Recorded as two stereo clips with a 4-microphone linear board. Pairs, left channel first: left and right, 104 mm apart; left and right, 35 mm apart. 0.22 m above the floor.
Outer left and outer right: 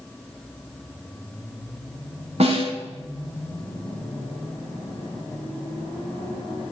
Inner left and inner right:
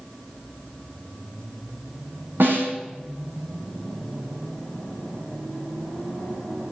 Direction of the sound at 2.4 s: 80° right.